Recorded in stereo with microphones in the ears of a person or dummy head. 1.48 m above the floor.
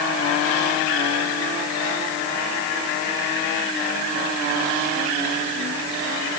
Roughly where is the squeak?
I don't hear a squeak.